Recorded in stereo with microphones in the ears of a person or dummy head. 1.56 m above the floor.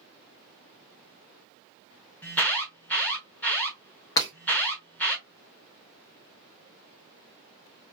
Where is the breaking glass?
20° left (ahead or behind), 0.9 m.